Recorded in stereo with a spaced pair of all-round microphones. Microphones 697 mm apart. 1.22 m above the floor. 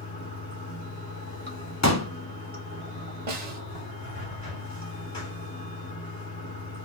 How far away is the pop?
About 0.9 m.